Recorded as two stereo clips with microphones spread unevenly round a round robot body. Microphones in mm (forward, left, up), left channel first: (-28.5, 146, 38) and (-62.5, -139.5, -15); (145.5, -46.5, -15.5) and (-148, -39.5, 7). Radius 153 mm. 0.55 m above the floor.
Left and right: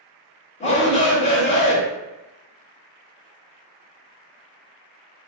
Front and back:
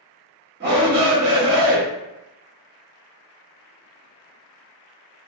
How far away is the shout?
About 0.7 m.